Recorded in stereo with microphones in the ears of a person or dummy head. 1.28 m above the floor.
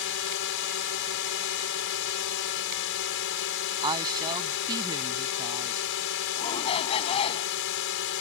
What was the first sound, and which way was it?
A drone, 65° left (ahead or behind).